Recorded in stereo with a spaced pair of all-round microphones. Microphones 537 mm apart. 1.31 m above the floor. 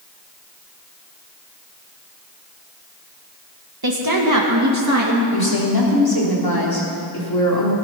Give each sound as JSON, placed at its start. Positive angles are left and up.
{"t": 3.8, "sound": "a woman speaking", "side_deg": -45, "distance_m": 1.5}
{"t": 5.3, "sound": "a woman speaking", "side_deg": 45, "distance_m": 3.5}